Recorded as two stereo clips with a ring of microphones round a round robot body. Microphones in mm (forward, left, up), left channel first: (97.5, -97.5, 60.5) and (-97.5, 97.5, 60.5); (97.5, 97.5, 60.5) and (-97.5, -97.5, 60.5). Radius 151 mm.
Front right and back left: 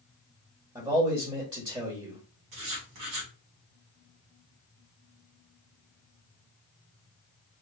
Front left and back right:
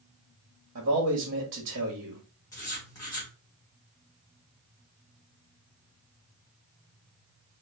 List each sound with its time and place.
0.8 s a man speaking: 160° right, 1.7 m
2.5 s writing: 125° left, 2.5 m